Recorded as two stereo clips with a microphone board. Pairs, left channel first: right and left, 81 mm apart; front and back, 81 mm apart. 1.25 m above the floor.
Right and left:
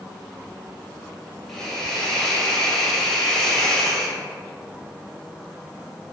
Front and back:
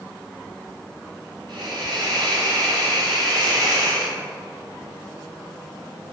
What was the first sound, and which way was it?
A hiss, 175° right.